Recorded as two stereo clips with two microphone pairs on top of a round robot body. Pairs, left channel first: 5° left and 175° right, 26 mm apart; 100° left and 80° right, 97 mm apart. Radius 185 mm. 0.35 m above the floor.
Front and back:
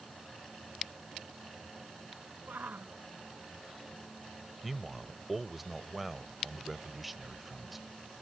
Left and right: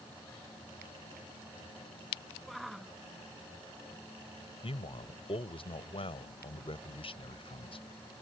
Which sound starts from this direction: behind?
A shout, at 2.5 s.